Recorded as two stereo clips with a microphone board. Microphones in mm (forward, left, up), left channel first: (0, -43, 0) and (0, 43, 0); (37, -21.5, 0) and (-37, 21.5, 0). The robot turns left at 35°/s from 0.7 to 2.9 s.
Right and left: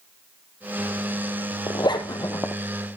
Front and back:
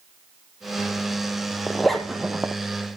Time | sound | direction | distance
1.7 | a zipper | 110° right | 1.5 m